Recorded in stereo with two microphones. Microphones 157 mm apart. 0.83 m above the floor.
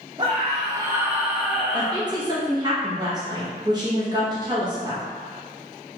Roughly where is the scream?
Right.